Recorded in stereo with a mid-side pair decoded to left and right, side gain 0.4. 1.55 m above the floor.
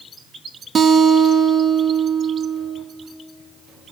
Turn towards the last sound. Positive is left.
turn(degrees=-55)